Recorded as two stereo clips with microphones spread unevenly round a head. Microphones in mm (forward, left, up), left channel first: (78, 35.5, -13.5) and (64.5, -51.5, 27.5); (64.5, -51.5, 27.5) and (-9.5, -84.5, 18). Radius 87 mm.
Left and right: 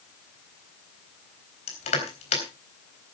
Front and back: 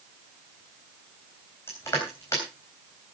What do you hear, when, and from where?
1.7 s crushing: 100° left, 3.5 m